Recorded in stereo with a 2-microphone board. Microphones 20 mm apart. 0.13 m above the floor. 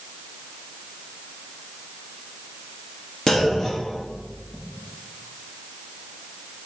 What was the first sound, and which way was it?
A clunk, 35° left (ahead or behind).